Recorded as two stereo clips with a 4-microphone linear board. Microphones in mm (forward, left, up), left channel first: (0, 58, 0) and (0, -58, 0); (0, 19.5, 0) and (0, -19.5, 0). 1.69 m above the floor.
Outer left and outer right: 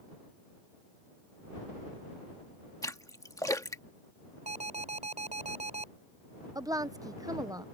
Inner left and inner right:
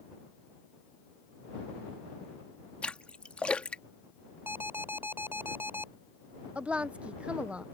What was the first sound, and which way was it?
A splash, 30° left (ahead or behind).